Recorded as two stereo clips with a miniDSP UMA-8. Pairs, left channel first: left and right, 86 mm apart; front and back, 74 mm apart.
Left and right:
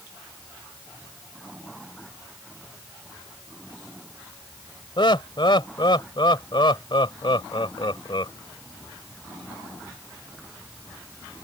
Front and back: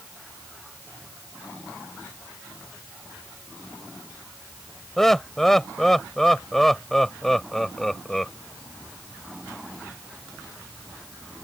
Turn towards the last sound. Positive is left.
turn(degrees=85)